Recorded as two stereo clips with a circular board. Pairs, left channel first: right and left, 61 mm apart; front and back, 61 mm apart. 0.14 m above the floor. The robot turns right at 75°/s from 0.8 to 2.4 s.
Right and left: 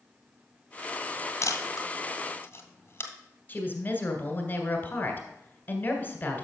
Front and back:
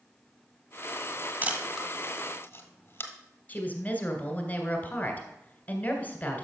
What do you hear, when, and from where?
1.4 s a camera shutter: 120° right, 1.5 m; by 3.1 s 45° right, 1.5 m
3.5 s a woman speaking: 50° right, 1.8 m